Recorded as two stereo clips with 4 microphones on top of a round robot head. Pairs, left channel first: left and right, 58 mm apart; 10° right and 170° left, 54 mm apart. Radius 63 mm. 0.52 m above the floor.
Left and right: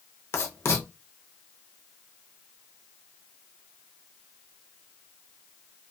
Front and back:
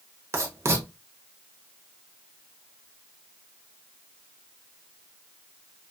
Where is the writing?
135° left, 0.7 m.